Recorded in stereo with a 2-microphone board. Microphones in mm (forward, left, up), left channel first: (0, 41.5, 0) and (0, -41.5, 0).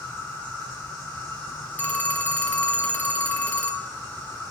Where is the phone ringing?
20° left (ahead or behind), 0.6 m.